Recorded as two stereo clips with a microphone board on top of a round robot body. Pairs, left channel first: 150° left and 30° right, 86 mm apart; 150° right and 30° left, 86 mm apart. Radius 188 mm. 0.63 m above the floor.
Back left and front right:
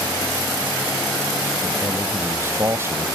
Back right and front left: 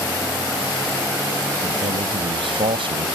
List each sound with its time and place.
1.6 s a man speaking: 35° left